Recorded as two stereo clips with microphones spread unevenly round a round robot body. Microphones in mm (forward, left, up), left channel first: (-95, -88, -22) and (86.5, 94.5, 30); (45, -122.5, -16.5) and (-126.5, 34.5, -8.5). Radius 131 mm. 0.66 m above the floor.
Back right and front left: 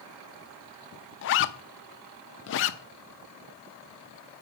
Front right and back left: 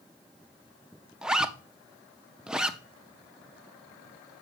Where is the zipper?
135° right, 0.5 m.